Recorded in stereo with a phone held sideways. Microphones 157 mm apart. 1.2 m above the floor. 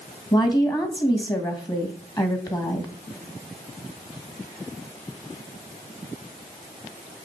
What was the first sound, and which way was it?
A woman speaking, 25° left (ahead or behind).